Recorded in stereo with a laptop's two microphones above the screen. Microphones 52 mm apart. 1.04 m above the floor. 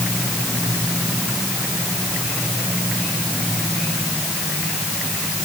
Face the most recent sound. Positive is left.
No sound to turn to.